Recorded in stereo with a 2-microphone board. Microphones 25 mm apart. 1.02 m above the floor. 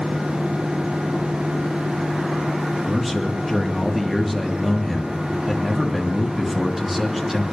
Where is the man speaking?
5° right (ahead or behind), 2 m.